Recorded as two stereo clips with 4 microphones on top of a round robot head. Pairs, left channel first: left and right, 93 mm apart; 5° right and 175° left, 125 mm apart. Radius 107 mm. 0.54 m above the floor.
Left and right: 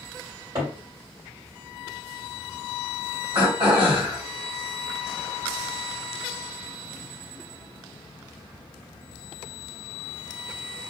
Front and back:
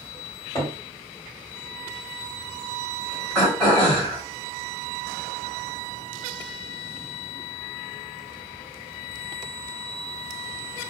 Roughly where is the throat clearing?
Right.